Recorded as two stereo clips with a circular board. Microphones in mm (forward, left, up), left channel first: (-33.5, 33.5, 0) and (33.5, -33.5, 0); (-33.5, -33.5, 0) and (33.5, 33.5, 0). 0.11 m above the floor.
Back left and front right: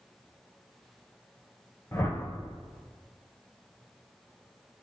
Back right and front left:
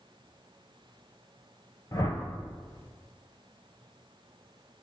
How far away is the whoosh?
About 0.7 m.